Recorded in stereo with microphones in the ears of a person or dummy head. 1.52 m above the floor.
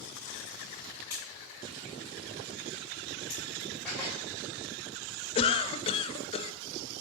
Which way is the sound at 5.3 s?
30° left (ahead or behind).